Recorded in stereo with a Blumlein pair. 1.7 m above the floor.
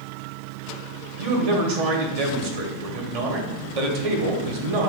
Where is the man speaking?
50° right, 0.9 m.